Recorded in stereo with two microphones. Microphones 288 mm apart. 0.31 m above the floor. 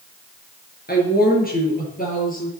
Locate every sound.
0.9 s a woman speaking: 35° left (ahead or behind), 5 m; by 2.5 s 30° left (ahead or behind), 6.5 m